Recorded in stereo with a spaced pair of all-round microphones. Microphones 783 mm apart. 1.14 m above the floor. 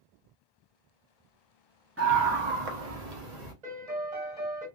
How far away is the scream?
About 0.6 m.